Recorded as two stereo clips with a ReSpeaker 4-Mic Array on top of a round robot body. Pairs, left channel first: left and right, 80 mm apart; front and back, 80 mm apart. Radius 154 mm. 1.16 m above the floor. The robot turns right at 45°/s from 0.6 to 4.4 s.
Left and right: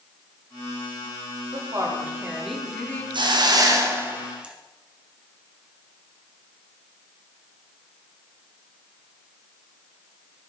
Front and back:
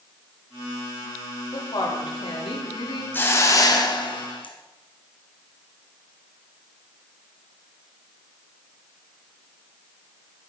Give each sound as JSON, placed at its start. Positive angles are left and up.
{"t": 1.5, "sound": "a woman speaking", "azimuth_deg": -45, "distance_m": 3.0}
{"t": 3.1, "sound": "a hiss", "azimuth_deg": -70, "distance_m": 1.9}